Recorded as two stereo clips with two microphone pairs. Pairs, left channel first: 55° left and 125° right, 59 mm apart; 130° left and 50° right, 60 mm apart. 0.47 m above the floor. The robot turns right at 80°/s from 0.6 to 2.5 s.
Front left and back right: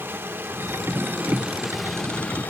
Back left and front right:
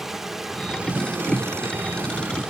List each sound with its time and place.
0.0 s running water: 130° right, 1.1 m; by 2.5 s 20° left, 1.1 m